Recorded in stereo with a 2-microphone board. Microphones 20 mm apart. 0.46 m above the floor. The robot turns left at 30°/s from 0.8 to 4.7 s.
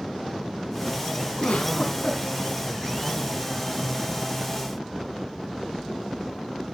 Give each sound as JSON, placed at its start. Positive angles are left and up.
{"t": 1.4, "sound": "a giggle", "side_deg": 75, "distance_m": 3.0}